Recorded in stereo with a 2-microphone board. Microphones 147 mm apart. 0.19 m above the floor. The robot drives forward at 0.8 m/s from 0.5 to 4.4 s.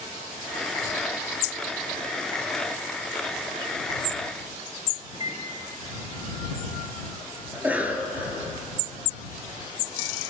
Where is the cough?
10° right (ahead or behind), 2.5 m.